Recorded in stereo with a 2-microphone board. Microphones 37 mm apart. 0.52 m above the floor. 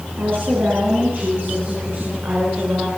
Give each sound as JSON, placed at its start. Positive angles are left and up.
{"t": 0.2, "sound": "a woman speaking", "side_deg": -80, "distance_m": 8.5}